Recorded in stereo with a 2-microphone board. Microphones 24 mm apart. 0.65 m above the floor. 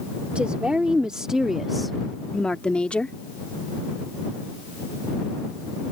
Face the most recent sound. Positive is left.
turn(degrees=50)  # may be behind; listen again after turning